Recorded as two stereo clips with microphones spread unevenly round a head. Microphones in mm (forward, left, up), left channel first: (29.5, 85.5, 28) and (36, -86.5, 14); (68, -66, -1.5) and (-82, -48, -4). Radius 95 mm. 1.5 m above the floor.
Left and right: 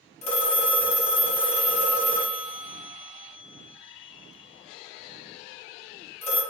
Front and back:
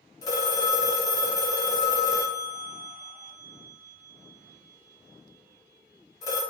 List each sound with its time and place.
0.2 s a phone ringing: 55° left, 0.9 m